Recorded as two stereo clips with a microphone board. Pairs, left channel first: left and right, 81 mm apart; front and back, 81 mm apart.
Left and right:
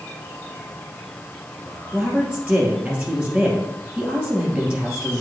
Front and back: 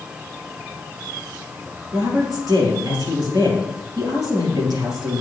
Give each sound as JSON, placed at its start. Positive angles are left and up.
{"t": 1.9, "sound": "a woman speaking", "azimuth_deg": -165, "distance_m": 3.0}